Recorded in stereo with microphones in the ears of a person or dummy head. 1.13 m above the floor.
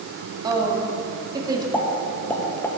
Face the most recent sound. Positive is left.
turn(degrees=5)  # may be behind; listen again after turning